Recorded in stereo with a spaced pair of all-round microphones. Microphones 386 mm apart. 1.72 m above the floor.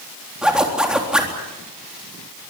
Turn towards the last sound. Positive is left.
turn(degrees=0)  # may be behind; listen again after turning